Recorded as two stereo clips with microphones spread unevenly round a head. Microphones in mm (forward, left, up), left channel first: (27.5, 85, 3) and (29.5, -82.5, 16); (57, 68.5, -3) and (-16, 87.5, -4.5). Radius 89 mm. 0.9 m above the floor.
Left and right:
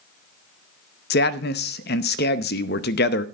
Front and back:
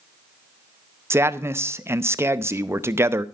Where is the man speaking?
110° left, 0.7 m.